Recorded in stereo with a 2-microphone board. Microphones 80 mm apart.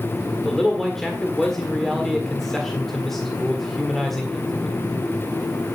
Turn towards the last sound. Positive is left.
turn(degrees=5)  # may be behind; listen again after turning